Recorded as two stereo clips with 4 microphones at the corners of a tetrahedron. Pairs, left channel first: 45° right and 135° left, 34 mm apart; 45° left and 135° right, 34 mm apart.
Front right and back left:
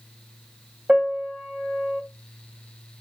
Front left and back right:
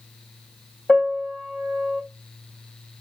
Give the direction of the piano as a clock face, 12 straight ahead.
9 o'clock.